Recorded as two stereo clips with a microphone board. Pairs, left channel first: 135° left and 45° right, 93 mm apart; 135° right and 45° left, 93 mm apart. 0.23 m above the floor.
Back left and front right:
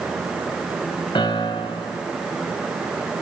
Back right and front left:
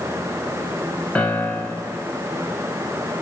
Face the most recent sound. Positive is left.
turn(degrees=150)